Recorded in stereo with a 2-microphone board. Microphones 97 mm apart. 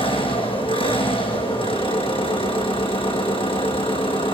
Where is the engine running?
70° left (ahead or behind), 5.5 m.